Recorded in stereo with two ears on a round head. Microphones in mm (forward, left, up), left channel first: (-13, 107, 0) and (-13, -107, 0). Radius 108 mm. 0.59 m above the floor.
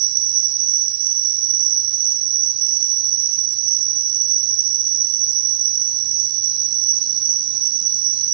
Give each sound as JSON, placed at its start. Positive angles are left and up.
{"t": 0.0, "sound": "an insect", "side_deg": -75, "distance_m": 0.8}